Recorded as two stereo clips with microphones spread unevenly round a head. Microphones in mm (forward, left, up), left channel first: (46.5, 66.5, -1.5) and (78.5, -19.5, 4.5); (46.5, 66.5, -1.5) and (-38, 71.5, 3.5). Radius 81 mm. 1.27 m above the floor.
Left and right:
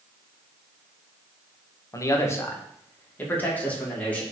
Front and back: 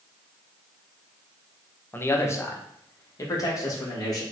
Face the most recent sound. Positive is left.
turn(degrees=35)